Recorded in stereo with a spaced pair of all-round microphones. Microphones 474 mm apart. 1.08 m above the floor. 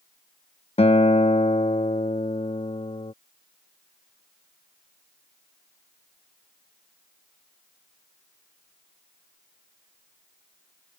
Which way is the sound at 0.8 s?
15° left (ahead or behind).